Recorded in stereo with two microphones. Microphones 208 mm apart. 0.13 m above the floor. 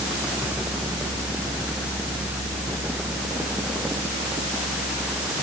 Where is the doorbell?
No doorbell in this recording.